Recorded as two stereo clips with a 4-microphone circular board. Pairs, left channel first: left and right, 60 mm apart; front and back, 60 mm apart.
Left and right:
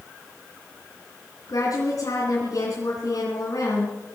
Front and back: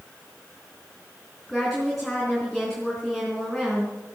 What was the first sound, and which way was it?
A woman speaking, 90° left.